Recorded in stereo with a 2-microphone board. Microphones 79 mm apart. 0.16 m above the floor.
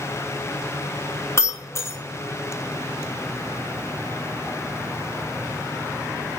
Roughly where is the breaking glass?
Left.